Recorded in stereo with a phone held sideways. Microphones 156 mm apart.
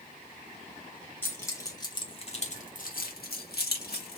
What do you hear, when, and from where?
1.2 s keys jangling: 15° left (ahead or behind), 1.4 m; by 4.2 s 80° left, 1.3 m